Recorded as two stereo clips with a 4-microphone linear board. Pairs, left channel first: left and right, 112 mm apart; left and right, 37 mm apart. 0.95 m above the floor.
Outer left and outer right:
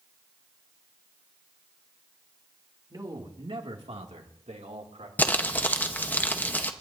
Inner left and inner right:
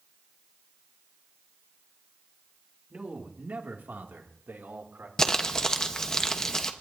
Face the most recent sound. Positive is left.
turn(degrees=15)  # may be behind; listen again after turning